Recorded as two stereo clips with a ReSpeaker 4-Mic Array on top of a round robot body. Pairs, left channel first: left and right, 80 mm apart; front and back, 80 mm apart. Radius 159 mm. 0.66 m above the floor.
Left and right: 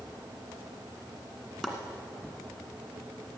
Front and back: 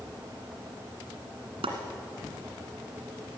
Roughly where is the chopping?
Behind.